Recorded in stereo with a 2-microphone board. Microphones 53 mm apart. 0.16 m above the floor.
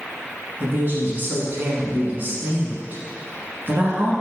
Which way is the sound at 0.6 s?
40° right (ahead or behind).